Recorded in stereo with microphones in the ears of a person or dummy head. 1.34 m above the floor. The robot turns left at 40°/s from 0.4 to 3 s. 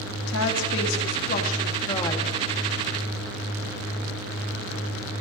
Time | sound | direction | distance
0.3 | a woman speaking | 85° left | 1.9 m